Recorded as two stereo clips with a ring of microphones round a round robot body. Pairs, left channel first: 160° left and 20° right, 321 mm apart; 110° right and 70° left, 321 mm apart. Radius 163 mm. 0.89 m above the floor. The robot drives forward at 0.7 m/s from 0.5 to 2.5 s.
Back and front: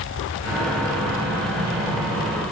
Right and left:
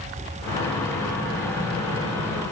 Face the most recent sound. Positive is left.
No sound to turn to.